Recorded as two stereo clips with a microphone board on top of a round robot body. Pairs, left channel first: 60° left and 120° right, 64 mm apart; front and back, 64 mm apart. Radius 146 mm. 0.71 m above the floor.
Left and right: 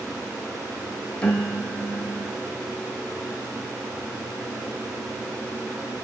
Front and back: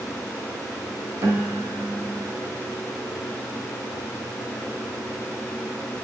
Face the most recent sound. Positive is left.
turn(degrees=130)